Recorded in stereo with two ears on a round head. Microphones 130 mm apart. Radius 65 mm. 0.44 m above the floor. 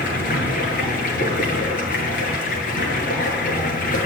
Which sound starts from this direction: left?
Running water, at 0.0 s.